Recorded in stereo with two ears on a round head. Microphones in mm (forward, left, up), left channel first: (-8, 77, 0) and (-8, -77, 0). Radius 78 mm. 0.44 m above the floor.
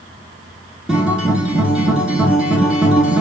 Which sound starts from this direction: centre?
A guitar, at 0.9 s.